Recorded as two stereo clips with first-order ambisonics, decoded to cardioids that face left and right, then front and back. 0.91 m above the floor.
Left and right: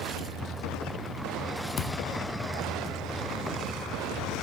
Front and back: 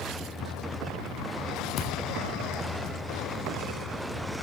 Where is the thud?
40° left, 0.5 m.